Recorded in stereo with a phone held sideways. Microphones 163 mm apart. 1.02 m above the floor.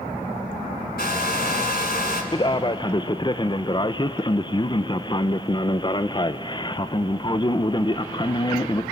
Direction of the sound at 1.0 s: 70° left (ahead or behind).